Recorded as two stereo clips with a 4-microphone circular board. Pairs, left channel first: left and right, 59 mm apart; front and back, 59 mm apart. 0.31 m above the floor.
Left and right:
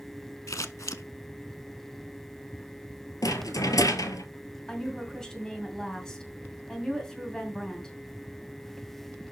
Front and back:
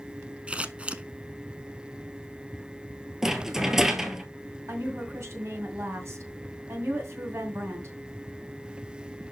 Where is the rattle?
100° left, 1.0 m.